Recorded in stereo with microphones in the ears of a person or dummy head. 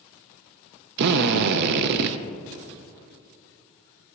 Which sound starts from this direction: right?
A drill, at 1.0 s.